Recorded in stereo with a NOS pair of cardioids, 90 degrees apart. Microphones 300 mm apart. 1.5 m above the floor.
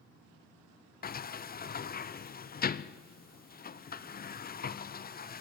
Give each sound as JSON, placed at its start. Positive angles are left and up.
{"t": 1.0, "sound": "a sliding door", "azimuth_deg": 30, "distance_m": 0.7}